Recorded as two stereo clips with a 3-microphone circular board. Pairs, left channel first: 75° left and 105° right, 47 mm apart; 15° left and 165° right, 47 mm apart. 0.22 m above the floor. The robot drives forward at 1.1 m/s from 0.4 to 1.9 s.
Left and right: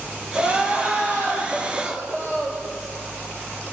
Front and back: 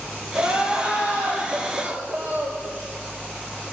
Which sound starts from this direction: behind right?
Crying, at 0.3 s.